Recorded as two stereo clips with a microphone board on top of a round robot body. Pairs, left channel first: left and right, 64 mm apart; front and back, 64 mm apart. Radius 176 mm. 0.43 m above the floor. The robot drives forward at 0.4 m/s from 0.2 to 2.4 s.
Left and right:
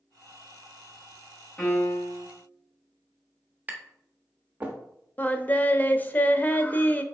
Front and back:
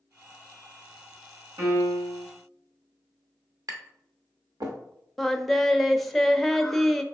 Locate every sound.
1.6 s a piano: 160° left, 2.5 m
3.7 s tapping: 155° right, 0.9 m
5.2 s singing: 85° left, 0.7 m